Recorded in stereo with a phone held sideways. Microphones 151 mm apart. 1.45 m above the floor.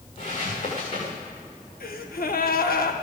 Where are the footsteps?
55° left (ahead or behind), 6.5 m.